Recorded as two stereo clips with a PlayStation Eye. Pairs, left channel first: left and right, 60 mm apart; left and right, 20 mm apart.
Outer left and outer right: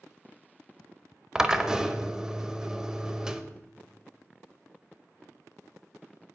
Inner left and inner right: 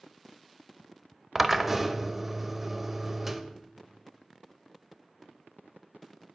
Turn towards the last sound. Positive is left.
turn(degrees=-10)  # may be behind; listen again after turning